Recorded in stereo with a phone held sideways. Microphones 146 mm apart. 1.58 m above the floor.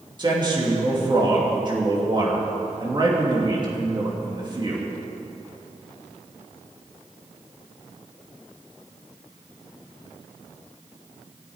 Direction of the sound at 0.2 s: 35° right (ahead or behind).